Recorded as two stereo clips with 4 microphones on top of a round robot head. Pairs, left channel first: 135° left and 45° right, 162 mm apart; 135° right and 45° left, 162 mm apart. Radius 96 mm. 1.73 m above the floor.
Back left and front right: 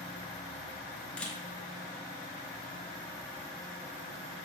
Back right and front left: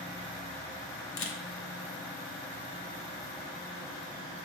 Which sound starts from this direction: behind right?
A camera shutter, at 1.2 s.